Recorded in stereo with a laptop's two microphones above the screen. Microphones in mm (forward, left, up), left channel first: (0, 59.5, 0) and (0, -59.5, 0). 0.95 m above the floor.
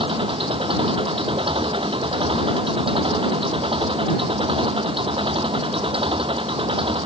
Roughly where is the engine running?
Right.